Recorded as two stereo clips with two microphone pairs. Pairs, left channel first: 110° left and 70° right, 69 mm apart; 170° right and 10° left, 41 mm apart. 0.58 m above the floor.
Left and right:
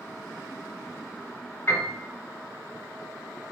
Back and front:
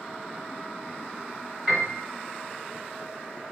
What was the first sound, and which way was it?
A piano, 85° left.